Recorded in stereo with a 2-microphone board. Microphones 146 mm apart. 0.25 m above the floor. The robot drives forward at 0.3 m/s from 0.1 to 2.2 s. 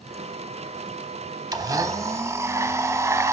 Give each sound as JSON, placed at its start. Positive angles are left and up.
{"t": 1.5, "sound": "a blender", "side_deg": -25, "distance_m": 0.6}